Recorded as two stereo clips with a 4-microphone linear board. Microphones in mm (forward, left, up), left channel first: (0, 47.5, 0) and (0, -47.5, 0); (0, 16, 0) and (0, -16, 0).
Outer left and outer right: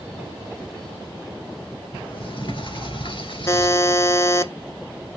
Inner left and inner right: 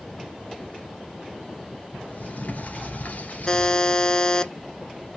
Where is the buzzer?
30° left (ahead or behind), 0.6 m.